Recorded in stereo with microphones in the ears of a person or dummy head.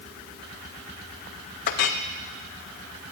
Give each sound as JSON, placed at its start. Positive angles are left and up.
{"t": 1.7, "sound": "a clink", "side_deg": 45, "distance_m": 0.5}